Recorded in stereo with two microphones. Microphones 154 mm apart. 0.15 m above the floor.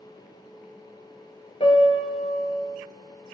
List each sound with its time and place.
1.6 s a piano: 40° left (ahead or behind), 0.5 m